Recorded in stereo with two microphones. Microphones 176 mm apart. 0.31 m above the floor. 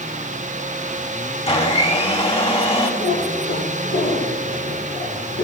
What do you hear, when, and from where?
1.5 s a blender: 35° left (ahead or behind), 1.8 m
3.0 s a cat meowing: 75° left (ahead or behind), 4 m